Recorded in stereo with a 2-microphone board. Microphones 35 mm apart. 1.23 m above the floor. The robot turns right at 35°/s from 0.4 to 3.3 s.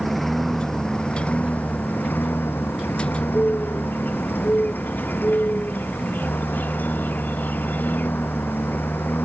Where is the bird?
60° left (ahead or behind).